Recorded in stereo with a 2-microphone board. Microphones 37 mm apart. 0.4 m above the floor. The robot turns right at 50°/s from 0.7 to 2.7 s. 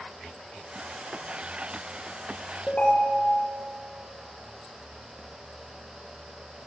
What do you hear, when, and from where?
2.7 s a ringtone: 40° left (ahead or behind), 3.5 m